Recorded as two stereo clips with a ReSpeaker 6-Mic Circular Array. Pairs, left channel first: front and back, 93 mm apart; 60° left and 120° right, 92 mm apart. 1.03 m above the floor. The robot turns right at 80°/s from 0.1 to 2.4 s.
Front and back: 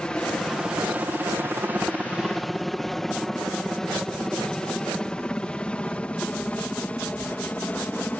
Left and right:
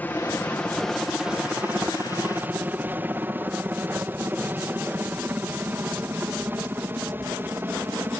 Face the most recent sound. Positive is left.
turn(degrees=-65)